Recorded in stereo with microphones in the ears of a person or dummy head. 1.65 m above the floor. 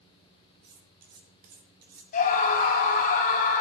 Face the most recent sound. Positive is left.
turn(degrees=50)  # may be behind; listen again after turning